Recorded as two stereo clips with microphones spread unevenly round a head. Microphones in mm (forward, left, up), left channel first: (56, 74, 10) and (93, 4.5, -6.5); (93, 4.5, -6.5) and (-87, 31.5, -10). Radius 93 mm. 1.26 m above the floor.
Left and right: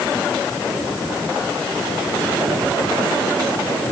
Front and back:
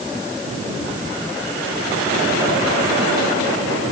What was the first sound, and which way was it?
Only background noise.